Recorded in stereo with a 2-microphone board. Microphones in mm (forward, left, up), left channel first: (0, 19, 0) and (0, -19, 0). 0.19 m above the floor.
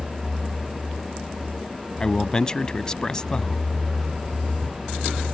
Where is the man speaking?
20° left (ahead or behind).